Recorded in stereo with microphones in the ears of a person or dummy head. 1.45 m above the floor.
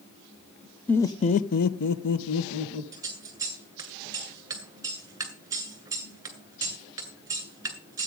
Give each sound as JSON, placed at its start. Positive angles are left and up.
{"t": 0.9, "sound": "laughter", "side_deg": 10, "distance_m": 0.7}
{"t": 2.9, "sound": "scissors", "side_deg": -15, "distance_m": 2.0}